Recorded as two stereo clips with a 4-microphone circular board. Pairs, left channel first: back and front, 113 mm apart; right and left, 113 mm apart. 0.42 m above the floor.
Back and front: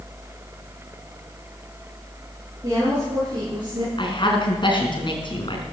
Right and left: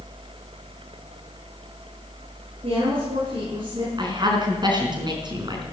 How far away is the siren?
I don't hear a siren.